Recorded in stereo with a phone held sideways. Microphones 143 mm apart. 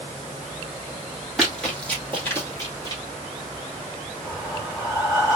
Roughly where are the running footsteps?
Centre.